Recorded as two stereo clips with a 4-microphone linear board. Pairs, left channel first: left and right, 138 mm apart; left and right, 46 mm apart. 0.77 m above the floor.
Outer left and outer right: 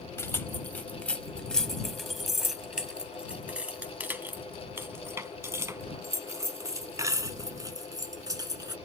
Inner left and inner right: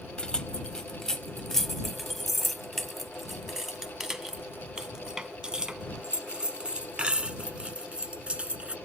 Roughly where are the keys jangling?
Centre.